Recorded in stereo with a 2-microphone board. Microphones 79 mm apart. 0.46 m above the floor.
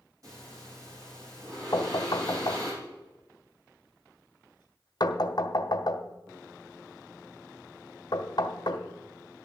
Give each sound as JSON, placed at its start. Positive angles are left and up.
{"t": 0.2, "sound": "breathing", "side_deg": -45, "distance_m": 8.0}
{"t": 1.7, "sound": "knocking", "side_deg": 55, "distance_m": 1.3}